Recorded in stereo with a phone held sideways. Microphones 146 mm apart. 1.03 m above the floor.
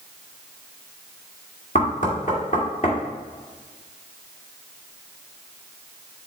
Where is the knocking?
60° left (ahead or behind), 2 m.